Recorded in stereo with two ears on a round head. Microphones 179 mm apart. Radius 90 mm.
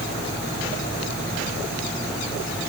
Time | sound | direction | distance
0.8 | a squeak | 40° left (ahead or behind) | 3 m